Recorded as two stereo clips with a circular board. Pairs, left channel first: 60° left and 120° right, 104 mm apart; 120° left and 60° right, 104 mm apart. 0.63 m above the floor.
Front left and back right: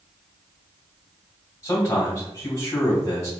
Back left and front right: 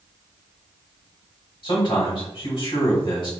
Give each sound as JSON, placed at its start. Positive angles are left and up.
{"t": 1.6, "sound": "a man speaking", "azimuth_deg": 115, "distance_m": 1.8}